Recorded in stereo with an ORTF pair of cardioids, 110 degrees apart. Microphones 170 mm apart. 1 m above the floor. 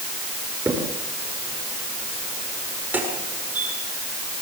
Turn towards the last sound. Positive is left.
turn(degrees=-10)